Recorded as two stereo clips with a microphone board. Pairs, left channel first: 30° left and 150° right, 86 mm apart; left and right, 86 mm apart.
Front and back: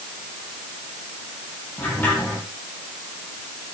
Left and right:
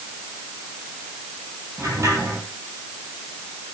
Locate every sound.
1.8 s a sliding door: 35° right, 9 m